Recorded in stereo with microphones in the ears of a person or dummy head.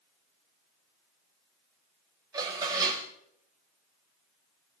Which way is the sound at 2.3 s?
20° right (ahead or behind).